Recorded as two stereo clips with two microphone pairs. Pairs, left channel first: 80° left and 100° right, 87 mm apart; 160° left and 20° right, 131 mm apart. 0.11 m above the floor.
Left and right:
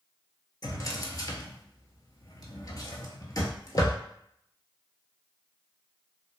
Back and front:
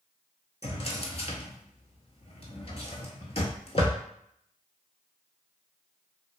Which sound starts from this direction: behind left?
A drawer, at 0.6 s.